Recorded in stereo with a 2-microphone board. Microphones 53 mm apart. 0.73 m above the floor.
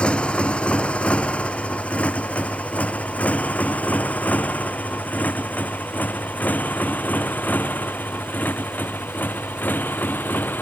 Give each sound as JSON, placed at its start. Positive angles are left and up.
{"t": 0.0, "sound": "a motorcycle", "side_deg": 20}